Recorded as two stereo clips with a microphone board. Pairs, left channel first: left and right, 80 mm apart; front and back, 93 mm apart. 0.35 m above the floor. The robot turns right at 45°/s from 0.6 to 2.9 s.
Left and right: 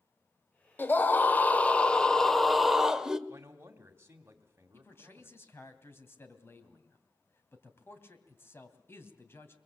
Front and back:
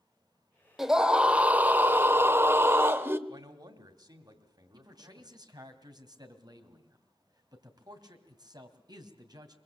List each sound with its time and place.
0.8 s a scream: 100° left, 1.2 m; by 3.2 s 165° right, 1.2 m
3.3 s a man speaking: 145° right, 2.5 m
4.7 s a man speaking: 145° left, 2.5 m